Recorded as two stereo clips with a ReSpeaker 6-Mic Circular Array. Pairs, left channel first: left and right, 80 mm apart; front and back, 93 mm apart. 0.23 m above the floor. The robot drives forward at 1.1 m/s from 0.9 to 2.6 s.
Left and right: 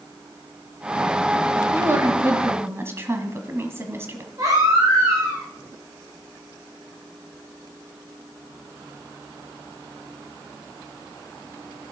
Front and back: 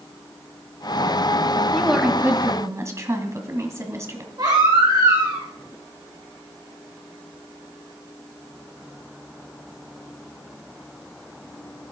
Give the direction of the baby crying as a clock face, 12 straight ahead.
4 o'clock.